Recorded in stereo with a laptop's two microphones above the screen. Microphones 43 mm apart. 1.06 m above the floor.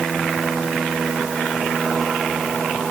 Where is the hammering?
I don't hear hammering.